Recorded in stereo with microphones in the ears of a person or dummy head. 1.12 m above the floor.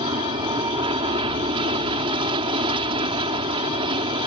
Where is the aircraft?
30° right (ahead or behind).